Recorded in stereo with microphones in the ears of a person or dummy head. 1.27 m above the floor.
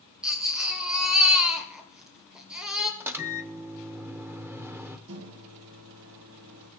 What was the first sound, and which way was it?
A baby crying, 5° right (ahead or behind).